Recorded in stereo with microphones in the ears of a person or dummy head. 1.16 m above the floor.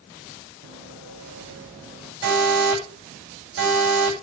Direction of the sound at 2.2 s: 55° right (ahead or behind).